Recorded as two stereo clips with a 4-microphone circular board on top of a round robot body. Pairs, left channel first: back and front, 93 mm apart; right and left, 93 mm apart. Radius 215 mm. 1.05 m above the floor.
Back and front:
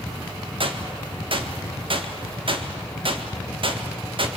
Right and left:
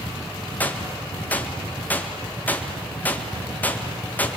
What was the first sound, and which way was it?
A gunshot, 20° right.